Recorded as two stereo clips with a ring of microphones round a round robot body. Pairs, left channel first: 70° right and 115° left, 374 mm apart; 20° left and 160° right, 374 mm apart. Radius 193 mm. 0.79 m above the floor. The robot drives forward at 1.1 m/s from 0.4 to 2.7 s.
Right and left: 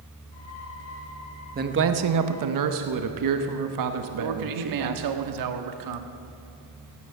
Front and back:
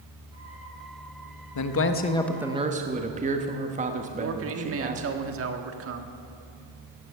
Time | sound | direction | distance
1.6 | a man speaking | 50° left | 1.1 m
4.2 | a man speaking | 145° left | 1.4 m